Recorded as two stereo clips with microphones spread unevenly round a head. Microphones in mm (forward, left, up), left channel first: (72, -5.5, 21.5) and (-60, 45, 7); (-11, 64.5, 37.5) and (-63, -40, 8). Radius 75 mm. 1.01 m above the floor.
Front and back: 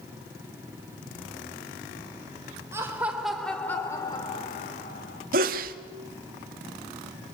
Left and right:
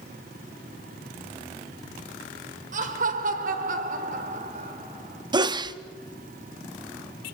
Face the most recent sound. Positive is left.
turn(degrees=-170)